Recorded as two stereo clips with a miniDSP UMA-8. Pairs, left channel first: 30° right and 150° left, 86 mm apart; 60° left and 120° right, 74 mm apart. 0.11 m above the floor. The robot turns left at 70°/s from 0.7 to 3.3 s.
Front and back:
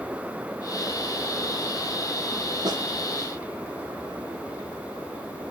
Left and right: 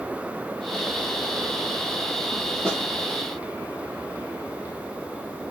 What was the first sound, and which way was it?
A snare drum, 135° left.